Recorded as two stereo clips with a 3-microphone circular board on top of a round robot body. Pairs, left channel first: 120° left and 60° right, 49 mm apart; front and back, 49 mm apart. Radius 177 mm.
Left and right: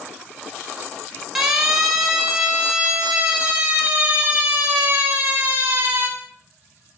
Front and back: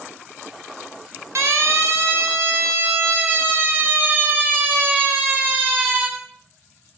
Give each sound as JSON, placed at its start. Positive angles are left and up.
{"t": 1.4, "sound": "a siren", "azimuth_deg": -145, "distance_m": 7.5}